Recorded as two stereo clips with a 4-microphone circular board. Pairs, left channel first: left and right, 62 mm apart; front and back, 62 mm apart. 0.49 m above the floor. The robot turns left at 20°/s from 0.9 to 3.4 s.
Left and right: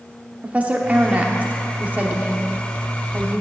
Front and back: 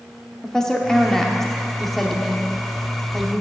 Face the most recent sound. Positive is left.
turn(degrees=-115)